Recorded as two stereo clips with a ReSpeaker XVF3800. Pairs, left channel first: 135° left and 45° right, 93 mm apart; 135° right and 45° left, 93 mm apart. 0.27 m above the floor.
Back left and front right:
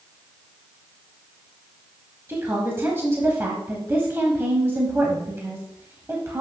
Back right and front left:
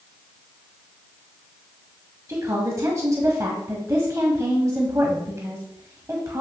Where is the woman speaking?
5° left, 1.2 m.